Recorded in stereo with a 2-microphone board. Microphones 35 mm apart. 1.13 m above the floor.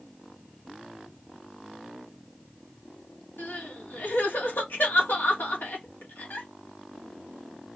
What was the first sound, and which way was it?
Crying, 75° left (ahead or behind).